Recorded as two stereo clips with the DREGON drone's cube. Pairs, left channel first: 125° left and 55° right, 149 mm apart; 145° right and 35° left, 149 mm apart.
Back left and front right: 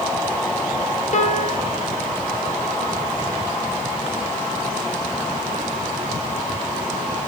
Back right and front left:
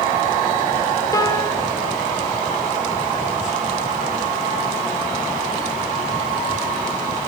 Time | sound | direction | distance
1.1 | a piano | 150° left | 1.1 m